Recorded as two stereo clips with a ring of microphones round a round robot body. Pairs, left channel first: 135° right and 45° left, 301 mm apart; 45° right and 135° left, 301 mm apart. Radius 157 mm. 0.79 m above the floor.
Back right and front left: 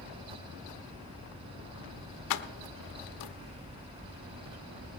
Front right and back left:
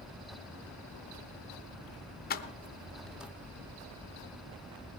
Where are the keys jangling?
105° right, 0.7 m; by 3.3 s 140° right, 0.9 m.